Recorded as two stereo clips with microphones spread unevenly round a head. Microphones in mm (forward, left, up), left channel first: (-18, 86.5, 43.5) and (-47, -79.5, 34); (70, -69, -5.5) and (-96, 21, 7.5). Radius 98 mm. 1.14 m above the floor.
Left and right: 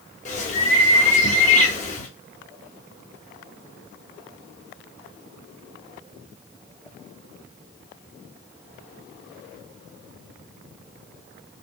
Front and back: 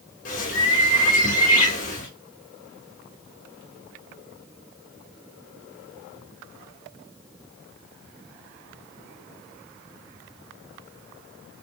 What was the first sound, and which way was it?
A bird, 25° left.